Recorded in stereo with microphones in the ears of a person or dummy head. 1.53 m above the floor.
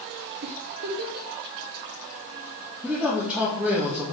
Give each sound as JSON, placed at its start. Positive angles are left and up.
{"t": 0.4, "sound": "a giggle", "side_deg": -50, "distance_m": 1.0}
{"t": 2.8, "sound": "a man speaking", "side_deg": -5, "distance_m": 1.9}